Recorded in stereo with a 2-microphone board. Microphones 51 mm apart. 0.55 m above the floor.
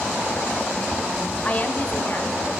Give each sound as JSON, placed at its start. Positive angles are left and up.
{"t": 1.4, "sound": "a woman speaking", "side_deg": 30, "distance_m": 1.1}